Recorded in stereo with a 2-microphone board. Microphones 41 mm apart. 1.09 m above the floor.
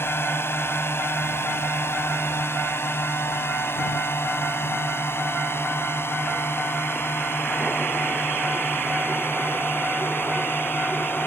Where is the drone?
75° left (ahead or behind); by 11.3 s 65° left (ahead or behind).